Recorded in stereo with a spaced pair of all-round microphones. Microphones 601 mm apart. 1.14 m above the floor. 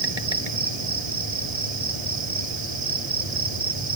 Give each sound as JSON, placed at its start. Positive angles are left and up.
{"t": 0.0, "sound": "an insect", "side_deg": -85}